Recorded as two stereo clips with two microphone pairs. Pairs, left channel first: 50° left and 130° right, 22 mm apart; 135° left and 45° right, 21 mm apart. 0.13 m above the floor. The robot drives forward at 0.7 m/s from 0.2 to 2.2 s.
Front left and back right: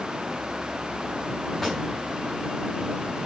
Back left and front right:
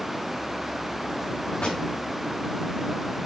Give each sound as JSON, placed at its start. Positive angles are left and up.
{"t": 1.6, "sound": "a pop", "azimuth_deg": 135, "distance_m": 5.5}